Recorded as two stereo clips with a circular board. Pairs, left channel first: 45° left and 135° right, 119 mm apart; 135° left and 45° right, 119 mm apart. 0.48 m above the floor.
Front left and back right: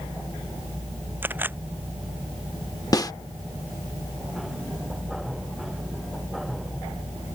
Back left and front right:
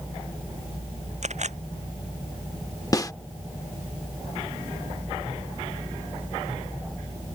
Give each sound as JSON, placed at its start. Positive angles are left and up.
{"t": 1.2, "sound": "a camera shutter", "azimuth_deg": -60}
{"t": 2.9, "sound": "a snare drum", "azimuth_deg": 90}